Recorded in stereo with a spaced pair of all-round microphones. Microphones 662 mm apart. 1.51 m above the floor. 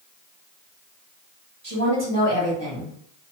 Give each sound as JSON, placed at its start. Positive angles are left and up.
{"t": 1.6, "sound": "a woman speaking", "side_deg": -30, "distance_m": 1.2}